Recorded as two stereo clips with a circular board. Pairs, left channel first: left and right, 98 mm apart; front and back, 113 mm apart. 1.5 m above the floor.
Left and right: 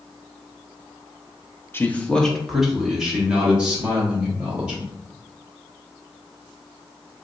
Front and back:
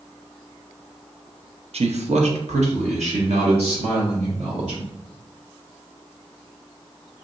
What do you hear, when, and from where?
1.7 s a man speaking: 155° left, 0.5 m; by 4.9 s 165° right, 2.5 m